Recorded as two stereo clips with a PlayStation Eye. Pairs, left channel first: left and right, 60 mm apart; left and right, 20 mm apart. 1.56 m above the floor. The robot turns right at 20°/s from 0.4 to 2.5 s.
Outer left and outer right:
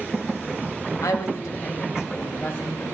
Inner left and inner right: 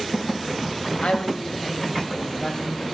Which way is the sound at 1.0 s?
65° left (ahead or behind).